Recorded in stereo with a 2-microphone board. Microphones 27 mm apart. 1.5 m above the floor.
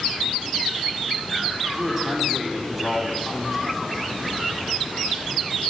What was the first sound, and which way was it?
A man speaking, 10° right (ahead or behind).